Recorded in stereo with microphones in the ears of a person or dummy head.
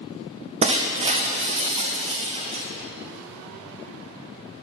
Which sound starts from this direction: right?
Breaking glass, at 0.6 s.